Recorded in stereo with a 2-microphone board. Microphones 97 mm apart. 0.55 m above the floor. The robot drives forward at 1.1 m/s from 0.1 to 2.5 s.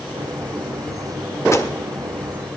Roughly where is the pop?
Left.